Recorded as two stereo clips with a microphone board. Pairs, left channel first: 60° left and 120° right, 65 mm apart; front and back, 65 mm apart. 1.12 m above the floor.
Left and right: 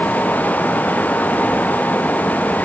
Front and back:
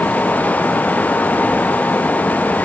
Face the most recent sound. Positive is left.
No sound to turn to.